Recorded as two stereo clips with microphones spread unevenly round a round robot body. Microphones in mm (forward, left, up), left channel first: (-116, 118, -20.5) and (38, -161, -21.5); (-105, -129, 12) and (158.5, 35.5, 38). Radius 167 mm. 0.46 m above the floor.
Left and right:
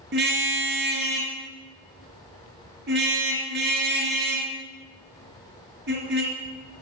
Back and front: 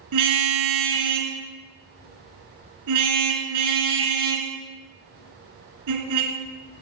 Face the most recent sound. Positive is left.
turn(degrees=0)